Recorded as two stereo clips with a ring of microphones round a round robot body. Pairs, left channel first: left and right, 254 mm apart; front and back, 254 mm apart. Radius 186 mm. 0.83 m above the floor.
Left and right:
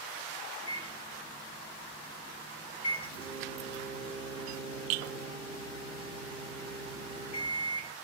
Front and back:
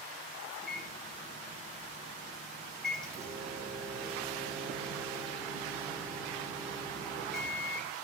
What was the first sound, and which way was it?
A microwave, 85° left.